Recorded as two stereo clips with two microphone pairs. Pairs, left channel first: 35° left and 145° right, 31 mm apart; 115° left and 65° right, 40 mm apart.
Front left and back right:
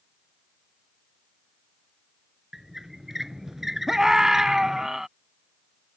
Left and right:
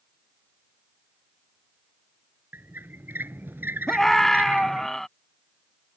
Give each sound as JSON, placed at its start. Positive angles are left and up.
{"t": 2.5, "sound": "a squeak", "azimuth_deg": -65}
{"t": 3.9, "sound": "a scream", "azimuth_deg": 175}